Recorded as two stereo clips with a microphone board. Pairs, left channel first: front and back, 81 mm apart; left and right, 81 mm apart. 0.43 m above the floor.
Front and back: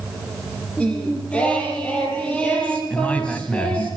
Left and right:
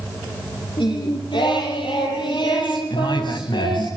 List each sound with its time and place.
0.8 s singing: 75° left, 8 m
2.9 s a man speaking: 75° left, 3.5 m